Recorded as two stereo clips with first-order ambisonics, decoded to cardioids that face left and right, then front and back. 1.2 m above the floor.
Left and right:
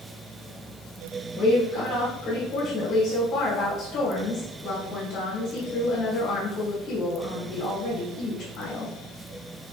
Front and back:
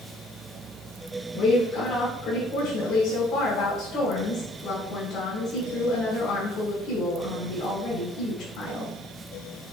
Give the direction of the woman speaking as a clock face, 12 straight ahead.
11 o'clock.